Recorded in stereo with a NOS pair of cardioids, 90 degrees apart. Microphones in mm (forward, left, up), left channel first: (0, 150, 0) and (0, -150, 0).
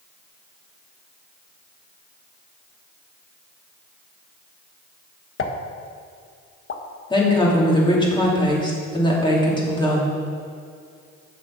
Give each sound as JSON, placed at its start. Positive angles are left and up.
{"t": 5.4, "sound": "a pop", "azimuth_deg": 45, "distance_m": 1.1}
{"t": 7.1, "sound": "a woman speaking", "azimuth_deg": 15, "distance_m": 3.0}